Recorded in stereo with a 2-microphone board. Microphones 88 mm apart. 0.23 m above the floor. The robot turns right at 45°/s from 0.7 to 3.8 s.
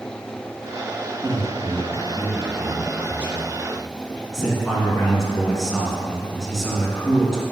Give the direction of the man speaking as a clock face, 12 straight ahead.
4 o'clock.